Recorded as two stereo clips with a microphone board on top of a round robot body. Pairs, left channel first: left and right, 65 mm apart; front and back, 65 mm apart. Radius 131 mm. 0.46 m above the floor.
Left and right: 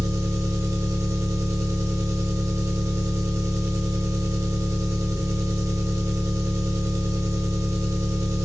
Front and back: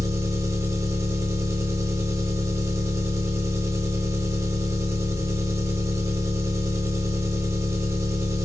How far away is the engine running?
About 0.8 m.